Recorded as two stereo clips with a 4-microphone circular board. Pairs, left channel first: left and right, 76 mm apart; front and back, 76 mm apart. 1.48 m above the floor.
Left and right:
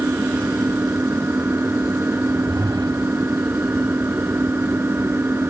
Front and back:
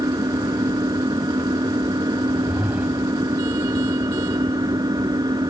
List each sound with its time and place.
0.0 s an engine running: 150° right
2.2 s a whoosh: 105° right